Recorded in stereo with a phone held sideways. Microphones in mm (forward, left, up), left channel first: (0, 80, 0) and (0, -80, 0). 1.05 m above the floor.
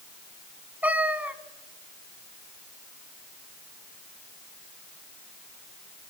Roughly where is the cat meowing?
Centre.